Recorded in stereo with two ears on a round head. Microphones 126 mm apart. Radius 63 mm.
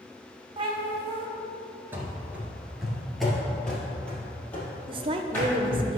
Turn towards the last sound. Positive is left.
turn(degrees=-35)  # may be behind; listen again after turning